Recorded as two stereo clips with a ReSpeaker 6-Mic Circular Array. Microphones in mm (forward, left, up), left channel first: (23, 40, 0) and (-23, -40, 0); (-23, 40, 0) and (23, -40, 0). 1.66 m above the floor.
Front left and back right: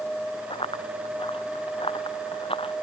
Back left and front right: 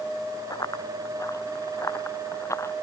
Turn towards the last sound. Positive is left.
turn(degrees=60)